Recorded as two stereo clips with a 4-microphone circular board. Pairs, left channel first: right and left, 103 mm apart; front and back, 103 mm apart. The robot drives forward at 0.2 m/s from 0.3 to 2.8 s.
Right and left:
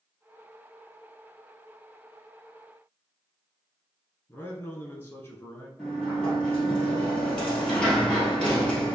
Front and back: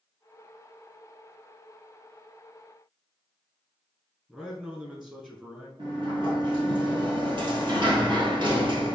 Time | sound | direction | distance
4.3 | a man speaking | 110° right | 1.2 m
5.8 | a sliding door | 170° right | 1.9 m